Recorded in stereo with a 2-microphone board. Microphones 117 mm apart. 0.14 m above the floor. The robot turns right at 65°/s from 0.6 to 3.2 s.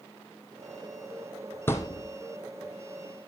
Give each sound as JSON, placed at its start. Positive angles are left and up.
{"t": 1.7, "sound": "a thud", "side_deg": 20, "distance_m": 1.3}